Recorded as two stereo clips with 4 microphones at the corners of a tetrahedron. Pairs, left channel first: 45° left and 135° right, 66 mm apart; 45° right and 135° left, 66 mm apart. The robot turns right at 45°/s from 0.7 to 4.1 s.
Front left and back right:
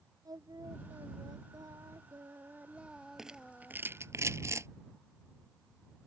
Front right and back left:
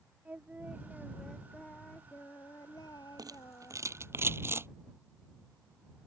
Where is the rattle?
140° left; by 4.7 s 175° right.